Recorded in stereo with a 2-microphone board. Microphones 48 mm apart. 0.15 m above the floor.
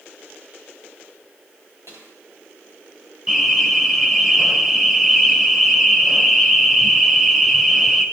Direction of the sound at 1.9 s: 80° right.